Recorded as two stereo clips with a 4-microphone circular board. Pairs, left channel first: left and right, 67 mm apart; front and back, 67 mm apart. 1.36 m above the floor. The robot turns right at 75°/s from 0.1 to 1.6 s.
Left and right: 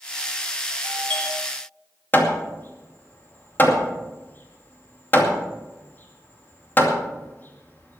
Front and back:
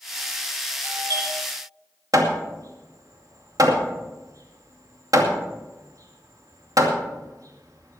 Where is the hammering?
150° left, 2.5 m.